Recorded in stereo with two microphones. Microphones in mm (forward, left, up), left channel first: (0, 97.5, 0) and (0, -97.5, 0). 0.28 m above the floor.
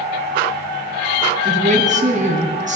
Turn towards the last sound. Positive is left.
turn(degrees=-40)  # may be behind; listen again after turning